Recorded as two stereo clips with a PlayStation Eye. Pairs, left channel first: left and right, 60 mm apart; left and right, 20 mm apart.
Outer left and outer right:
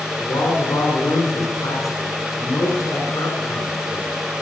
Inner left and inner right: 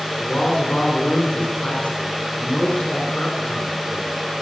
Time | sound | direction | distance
0.2 | a man speaking | 60° left (ahead or behind) | 5 m